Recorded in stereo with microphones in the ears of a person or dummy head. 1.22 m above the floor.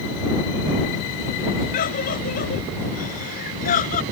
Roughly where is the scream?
Left.